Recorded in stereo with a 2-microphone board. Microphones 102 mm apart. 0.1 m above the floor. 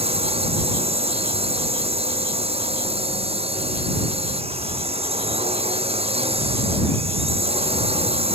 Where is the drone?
70° right (ahead or behind).